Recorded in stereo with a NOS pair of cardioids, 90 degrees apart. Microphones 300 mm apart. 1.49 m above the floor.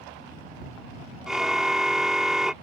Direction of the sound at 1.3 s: Straight ahead.